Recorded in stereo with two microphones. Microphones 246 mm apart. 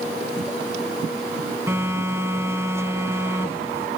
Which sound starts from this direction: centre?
A phone buzzing, at 1.7 s.